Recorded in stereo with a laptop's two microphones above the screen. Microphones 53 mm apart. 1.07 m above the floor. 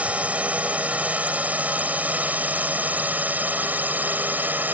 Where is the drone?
25° right (ahead or behind); by 4.7 s 35° right (ahead or behind).